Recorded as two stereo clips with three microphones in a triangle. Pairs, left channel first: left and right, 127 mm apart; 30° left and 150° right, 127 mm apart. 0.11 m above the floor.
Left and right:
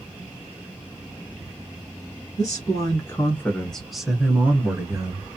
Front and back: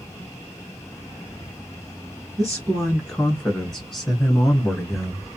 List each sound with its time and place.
2.4 s a man speaking: 110° left, 1.5 m; by 5.3 s 60° right, 1.5 m